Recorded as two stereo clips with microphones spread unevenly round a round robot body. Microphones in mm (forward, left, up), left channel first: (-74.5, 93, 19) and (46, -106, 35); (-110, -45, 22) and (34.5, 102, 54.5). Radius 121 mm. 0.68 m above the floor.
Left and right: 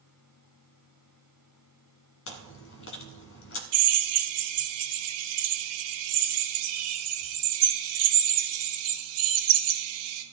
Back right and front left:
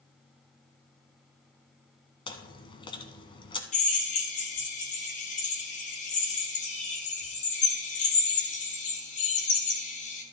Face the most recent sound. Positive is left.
turn(degrees=-80)